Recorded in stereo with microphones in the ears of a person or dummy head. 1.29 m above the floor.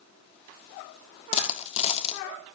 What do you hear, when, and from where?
1.3 s a dropped coin: 30° left (ahead or behind), 1.4 m